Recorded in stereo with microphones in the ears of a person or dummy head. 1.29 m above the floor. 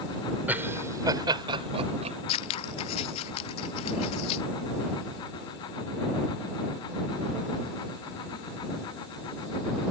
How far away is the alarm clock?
I don't hear an alarm clock.